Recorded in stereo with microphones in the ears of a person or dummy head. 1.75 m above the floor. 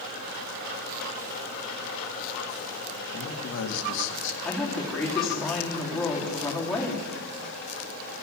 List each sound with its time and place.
3.1 s a man speaking: 70° left (ahead or behind), 1.9 m
4.5 s a woman speaking: 5° left (ahead or behind), 4 m